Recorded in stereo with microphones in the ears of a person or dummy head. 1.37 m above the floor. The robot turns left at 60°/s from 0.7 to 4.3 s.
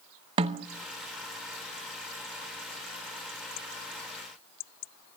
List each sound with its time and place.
0.4 s a snare drum: 30° right (ahead or behind), 0.7 m